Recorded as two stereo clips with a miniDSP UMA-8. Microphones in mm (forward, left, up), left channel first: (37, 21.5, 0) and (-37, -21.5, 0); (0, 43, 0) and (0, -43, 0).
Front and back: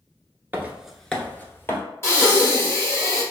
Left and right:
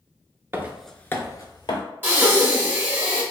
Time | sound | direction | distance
0.5 | footsteps | 110° right | 0.6 m
2.0 | breathing | 25° right | 1.2 m